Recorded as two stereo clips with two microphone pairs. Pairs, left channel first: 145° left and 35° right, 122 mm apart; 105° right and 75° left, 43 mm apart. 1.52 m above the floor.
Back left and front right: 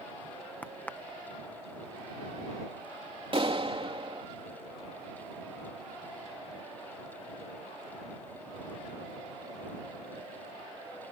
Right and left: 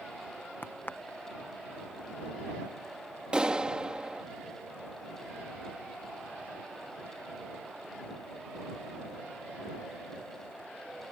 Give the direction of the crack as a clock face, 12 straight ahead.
5 o'clock.